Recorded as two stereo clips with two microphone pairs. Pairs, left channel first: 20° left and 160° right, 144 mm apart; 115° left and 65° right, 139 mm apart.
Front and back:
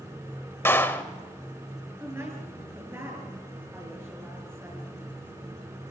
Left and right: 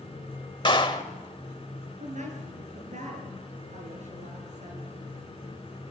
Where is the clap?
85° left, 1.5 m.